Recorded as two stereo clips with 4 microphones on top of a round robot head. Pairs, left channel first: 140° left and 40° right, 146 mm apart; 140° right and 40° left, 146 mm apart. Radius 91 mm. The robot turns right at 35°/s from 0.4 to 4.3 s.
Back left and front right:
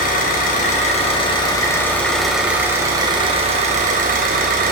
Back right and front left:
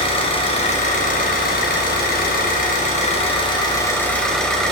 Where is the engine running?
165° left, 2 m; by 4.7 s 55° right, 2 m.